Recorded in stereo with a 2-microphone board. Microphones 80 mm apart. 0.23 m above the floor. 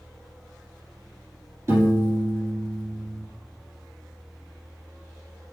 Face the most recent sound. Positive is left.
turn(degrees=-40)  # may be behind; listen again after turning